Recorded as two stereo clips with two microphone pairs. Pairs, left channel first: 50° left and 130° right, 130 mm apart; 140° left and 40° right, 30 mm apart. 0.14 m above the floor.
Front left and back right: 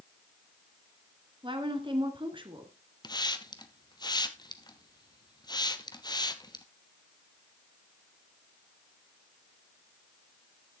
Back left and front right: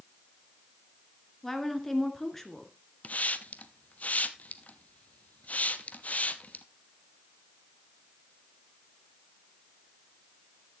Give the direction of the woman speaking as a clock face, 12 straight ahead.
5 o'clock.